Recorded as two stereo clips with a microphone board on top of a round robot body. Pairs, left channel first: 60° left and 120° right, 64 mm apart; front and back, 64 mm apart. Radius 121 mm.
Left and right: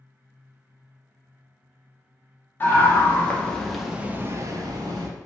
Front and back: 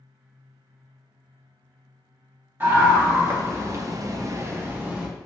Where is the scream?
120° left, 1.3 m; by 5.1 s 110° right, 0.8 m.